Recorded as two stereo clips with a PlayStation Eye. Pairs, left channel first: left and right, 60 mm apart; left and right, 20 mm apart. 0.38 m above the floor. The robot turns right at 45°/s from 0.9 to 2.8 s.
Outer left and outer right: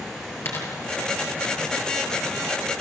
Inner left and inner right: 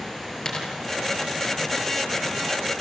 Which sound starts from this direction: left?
A dropped coin, at 0.5 s.